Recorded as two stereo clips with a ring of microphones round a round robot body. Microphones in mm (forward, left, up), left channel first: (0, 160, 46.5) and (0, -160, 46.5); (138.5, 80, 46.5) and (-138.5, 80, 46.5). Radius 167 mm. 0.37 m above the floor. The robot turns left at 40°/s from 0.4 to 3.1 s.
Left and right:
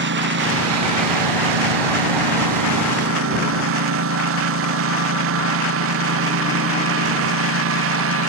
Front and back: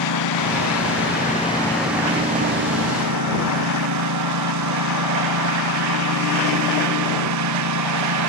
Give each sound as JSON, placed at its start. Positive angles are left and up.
{"t": 0.0, "sound": "a lawn mower", "azimuth_deg": -30}